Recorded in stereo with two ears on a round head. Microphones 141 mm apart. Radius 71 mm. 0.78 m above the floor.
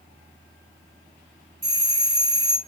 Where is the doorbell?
20° right (ahead or behind), 4 m.